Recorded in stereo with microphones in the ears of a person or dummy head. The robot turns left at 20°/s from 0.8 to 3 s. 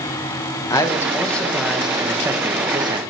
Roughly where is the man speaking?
Ahead.